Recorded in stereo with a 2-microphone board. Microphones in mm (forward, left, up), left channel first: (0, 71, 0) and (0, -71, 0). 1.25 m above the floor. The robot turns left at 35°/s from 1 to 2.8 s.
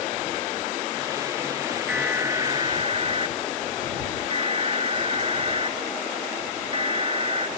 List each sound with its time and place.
1.9 s an alarm: 10° right; by 7.5 s 40° right